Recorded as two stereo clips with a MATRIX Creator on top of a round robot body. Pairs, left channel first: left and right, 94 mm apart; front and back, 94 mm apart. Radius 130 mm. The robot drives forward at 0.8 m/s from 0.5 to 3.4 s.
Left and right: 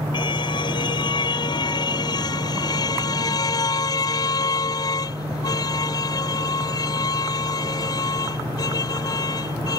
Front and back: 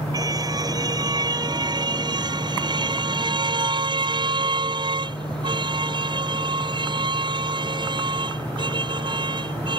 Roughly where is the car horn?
Behind left.